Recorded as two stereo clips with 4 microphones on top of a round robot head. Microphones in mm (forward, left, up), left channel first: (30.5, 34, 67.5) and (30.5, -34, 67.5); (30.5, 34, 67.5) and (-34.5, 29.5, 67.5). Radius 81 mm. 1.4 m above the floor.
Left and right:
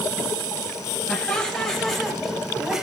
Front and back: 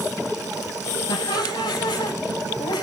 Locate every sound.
1.1 s laughter: 15° left, 8 m; by 2.8 s 5° right, 7 m